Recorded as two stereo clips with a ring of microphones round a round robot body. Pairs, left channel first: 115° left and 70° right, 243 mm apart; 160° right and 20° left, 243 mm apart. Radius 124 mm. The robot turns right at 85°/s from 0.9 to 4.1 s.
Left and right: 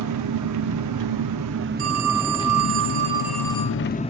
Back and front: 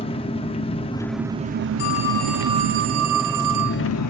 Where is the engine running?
90° right, 0.8 m; by 4.1 s 175° right, 0.8 m.